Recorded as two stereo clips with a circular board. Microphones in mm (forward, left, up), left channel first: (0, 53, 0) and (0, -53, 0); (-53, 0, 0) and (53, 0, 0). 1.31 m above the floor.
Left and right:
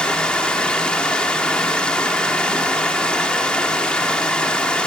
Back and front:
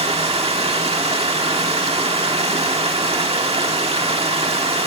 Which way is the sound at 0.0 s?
10° left.